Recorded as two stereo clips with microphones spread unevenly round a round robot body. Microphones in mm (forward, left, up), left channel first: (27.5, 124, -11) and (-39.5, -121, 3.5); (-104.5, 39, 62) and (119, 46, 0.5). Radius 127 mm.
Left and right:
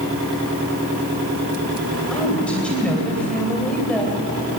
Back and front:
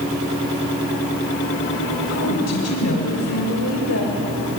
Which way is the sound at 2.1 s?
160° left.